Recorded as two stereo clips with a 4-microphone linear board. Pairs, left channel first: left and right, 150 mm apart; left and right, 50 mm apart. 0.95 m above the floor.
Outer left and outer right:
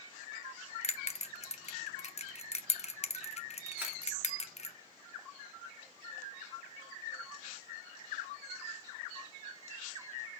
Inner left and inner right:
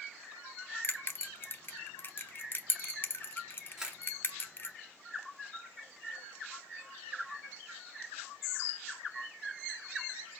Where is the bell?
45° left (ahead or behind), 0.7 m.